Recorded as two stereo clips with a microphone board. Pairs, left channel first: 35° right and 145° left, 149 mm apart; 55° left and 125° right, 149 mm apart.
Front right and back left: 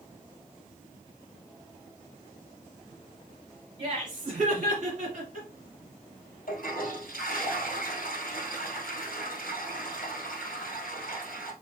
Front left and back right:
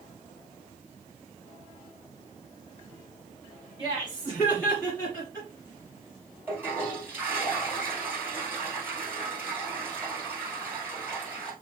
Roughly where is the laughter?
Left.